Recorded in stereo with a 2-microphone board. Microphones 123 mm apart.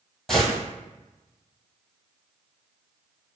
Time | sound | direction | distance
0.3 | a gunshot | centre (ahead or behind) | 1.5 m